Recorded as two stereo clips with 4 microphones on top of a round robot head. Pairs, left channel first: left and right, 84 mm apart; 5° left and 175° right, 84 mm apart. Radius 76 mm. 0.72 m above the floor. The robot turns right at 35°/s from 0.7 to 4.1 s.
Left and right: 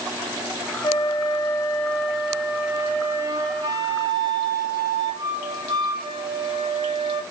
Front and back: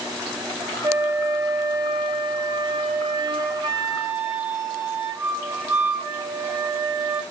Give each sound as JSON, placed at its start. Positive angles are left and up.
{"t": 0.8, "sound": "a flute", "azimuth_deg": 130, "distance_m": 2.0}